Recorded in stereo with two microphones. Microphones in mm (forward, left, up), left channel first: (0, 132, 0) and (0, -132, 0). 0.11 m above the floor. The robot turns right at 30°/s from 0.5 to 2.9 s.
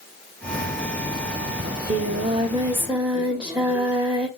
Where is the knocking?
No knocking in this recording.